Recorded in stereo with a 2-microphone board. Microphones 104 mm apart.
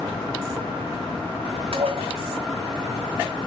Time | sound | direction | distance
1.7 | dishes clattering | 65° right (ahead or behind) | 1.8 m